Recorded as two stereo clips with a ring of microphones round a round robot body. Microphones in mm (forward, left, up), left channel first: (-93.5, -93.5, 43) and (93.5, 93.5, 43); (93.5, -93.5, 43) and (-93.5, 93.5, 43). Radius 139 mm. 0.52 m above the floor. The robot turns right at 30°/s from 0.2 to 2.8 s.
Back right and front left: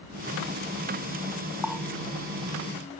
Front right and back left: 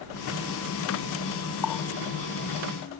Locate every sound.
1.6 s a running tap: 45° right; by 1.9 s 40° right